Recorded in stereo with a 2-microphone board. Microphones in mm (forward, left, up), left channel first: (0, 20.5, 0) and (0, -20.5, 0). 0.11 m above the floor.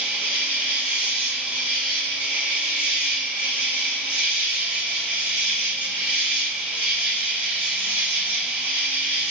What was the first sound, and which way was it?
An insect, 30° right (ahead or behind).